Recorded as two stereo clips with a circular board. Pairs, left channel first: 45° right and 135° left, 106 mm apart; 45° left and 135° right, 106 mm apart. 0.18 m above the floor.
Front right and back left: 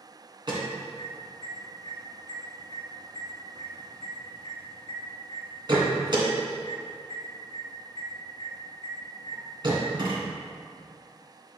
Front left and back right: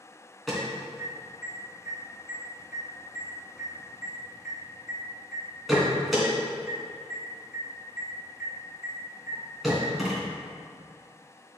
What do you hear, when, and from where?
0.5 s an alarm: 140° left, 2.5 m